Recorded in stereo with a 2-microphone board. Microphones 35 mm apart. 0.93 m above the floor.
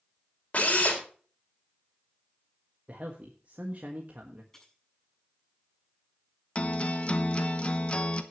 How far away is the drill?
About 3.5 m.